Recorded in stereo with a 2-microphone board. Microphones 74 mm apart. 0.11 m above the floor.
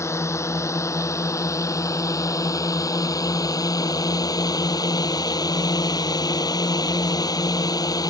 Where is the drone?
40° left (ahead or behind); by 8.1 s 60° left (ahead or behind).